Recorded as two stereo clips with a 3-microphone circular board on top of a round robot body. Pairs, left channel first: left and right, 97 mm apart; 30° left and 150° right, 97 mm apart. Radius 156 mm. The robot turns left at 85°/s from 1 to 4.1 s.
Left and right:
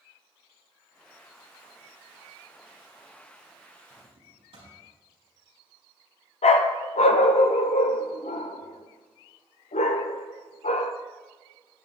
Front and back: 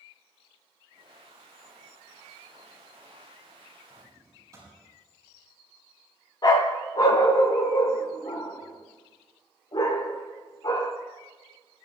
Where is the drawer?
75° right, 6 m; by 4.8 s 95° right, 6 m.